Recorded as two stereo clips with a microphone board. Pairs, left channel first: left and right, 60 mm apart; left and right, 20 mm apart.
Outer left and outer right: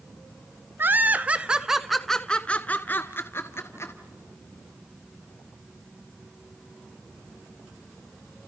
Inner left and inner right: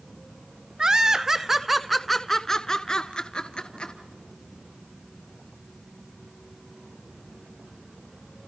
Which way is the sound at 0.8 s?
40° right (ahead or behind).